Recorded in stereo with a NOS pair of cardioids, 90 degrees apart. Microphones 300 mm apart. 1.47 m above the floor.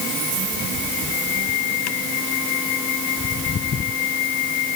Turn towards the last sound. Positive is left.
No sound to turn to.